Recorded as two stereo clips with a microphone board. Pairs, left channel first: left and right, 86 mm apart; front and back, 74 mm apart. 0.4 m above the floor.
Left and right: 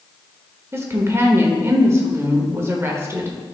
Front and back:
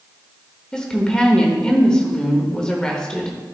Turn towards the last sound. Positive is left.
turn(degrees=-70)